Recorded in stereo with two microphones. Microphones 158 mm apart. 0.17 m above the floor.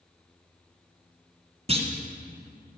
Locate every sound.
1.7 s a clunk: 40° right (ahead or behind), 1.2 m